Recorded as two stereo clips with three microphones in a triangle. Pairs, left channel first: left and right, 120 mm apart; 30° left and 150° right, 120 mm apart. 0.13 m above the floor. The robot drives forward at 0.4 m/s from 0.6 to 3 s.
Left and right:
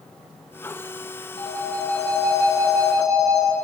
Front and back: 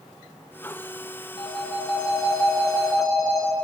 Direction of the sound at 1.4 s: 75° left.